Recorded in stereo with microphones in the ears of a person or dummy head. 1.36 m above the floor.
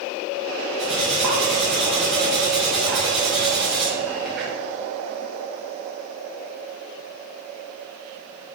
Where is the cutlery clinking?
Centre (ahead or behind), 0.7 m.